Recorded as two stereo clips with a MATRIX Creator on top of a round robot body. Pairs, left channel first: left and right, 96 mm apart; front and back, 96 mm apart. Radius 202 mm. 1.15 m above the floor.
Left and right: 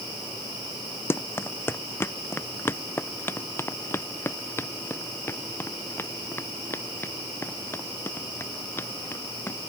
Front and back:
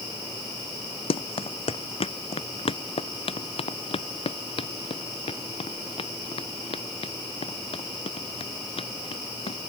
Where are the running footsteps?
20° left.